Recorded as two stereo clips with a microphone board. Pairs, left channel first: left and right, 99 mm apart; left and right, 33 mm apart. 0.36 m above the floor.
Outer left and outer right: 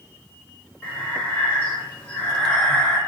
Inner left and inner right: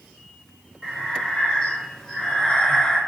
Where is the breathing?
15° left (ahead or behind), 1.4 m.